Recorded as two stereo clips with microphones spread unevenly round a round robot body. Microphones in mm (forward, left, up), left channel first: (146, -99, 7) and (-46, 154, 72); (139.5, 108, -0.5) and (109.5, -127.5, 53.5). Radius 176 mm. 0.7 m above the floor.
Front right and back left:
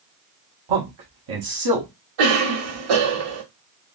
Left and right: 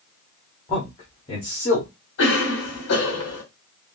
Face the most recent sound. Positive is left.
turn(degrees=125)